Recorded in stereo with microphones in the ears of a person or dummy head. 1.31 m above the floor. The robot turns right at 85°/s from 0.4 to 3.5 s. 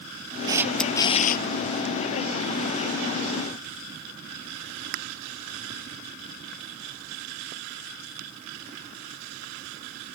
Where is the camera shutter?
25° right; by 1.4 s 60° left.